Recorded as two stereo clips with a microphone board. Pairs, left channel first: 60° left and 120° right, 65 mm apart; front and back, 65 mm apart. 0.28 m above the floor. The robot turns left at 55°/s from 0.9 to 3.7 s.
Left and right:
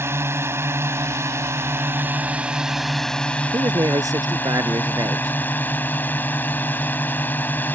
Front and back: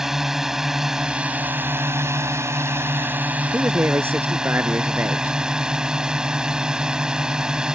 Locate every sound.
0.0 s a drone: 100° right; by 7.8 s 110° left
3.5 s a man speaking: 120° right; by 5.3 s 125° right